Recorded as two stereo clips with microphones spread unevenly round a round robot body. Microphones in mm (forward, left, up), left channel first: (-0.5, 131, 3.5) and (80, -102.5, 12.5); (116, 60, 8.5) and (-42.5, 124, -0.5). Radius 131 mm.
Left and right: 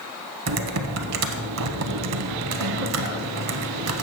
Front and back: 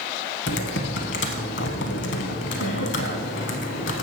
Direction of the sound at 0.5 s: 45° right.